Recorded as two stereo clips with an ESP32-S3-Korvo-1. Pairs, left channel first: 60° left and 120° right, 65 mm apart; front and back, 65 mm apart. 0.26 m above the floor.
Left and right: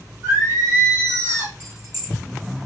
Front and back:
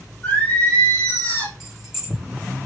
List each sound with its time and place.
0.2 s singing: 65° right, 3 m
1.6 s keys jangling: 90° right, 3 m